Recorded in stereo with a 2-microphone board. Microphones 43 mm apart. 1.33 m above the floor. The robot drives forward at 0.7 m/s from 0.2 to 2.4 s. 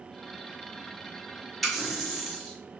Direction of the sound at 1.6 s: 5° left (ahead or behind).